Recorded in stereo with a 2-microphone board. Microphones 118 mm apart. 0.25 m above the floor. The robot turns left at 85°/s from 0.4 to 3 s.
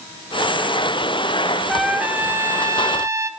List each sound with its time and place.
1.7 s a trumpet: centre (ahead or behind), 0.5 m; by 3.3 s 25° right (ahead or behind), 0.5 m